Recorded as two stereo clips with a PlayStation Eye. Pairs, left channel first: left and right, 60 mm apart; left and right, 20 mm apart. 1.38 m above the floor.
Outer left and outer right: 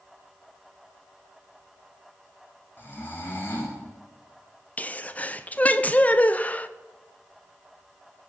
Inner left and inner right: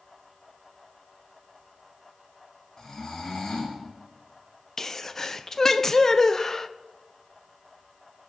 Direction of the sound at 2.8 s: 40° left (ahead or behind).